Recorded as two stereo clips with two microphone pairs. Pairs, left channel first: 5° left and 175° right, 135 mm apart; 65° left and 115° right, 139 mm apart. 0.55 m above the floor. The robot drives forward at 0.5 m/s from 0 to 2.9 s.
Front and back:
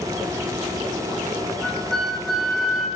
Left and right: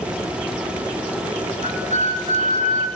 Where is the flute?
80° right, 3.5 m; by 2.9 s 90° right, 3 m.